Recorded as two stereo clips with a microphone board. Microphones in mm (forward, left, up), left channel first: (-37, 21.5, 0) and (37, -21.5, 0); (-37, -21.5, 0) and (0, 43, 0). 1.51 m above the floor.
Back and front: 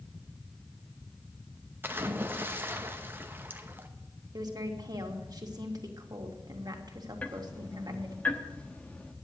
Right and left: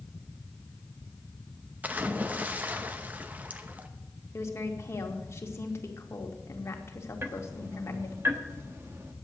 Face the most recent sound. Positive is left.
turn(degrees=90)